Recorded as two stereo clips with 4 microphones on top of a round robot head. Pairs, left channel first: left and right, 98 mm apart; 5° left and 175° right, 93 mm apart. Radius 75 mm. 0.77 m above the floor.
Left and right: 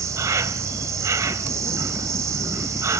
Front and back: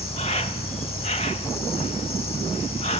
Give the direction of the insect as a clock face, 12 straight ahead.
1 o'clock.